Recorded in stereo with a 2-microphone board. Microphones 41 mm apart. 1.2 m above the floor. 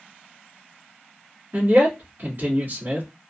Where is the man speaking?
60° right (ahead or behind), 1.6 m.